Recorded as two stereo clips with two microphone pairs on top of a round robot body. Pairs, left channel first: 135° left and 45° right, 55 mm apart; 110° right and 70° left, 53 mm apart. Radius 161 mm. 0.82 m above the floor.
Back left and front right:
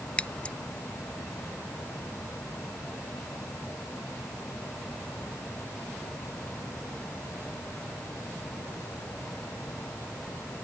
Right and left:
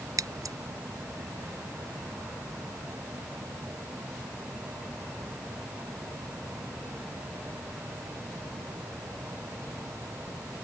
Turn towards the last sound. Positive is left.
turn(degrees=65)